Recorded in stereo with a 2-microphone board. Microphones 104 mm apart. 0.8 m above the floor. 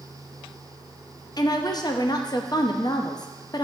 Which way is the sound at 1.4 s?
40° left (ahead or behind).